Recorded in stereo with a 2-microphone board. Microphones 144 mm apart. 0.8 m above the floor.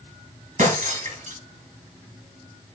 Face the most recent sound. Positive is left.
turn(degrees=-60)  # may be behind; listen again after turning